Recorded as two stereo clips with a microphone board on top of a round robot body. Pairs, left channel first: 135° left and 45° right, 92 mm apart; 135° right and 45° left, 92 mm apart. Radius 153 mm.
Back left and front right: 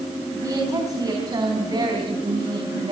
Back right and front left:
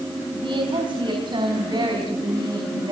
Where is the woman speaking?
10° left, 5.5 m; by 2.9 s 5° right, 5.5 m.